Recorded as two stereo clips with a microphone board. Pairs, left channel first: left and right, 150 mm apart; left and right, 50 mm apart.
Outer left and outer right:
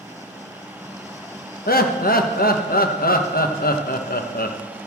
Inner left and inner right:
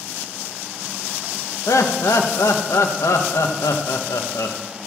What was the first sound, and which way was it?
Laughter, 80° left.